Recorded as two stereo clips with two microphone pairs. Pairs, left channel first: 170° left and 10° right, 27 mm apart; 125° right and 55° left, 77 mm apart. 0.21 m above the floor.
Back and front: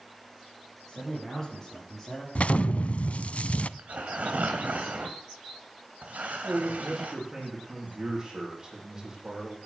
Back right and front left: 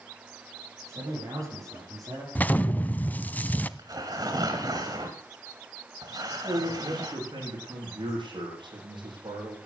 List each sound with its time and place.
0.8 s a man speaking: 100° left, 8 m; by 2.2 s 95° left, 9 m
2.4 s an explosion: 175° left, 0.6 m
3.8 s tearing paper: 15° left, 2.5 m
6.4 s a man speaking: 65° left, 8 m